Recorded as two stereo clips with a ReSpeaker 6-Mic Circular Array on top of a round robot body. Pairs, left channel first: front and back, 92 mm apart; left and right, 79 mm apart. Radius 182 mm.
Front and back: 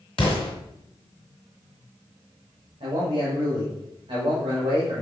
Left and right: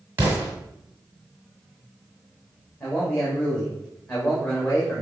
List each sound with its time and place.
0.2 s an explosion: 25° right, 1.4 m
2.8 s a man speaking: 150° left, 2.5 m